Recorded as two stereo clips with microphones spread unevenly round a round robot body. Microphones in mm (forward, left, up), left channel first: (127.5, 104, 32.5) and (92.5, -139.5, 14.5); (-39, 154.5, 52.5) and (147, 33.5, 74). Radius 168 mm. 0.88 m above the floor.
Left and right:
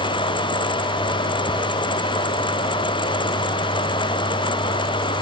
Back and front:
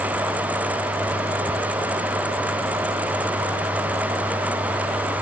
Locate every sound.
Only background noise.